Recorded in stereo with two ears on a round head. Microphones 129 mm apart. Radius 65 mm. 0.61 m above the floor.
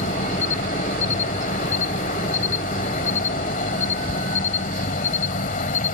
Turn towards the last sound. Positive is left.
turn(degrees=60)  # may be behind; listen again after turning